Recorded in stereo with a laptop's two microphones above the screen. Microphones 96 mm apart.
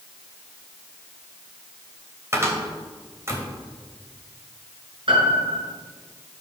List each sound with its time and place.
2.3 s a cupboard door: 30° right (ahead or behind), 3 m
5.1 s a piano: 65° right (ahead or behind), 5.5 m